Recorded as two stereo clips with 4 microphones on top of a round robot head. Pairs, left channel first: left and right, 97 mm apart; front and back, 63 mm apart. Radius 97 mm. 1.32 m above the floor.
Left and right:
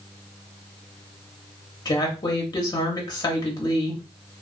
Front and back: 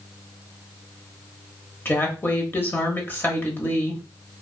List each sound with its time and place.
1.9 s a woman speaking: 50° left, 0.9 m